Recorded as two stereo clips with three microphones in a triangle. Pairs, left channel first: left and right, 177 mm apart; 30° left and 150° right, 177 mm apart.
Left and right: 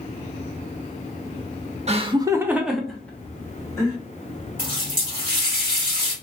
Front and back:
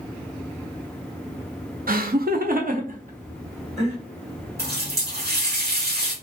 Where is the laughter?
135° right, 0.6 m; by 4.0 s 160° left, 1.4 m.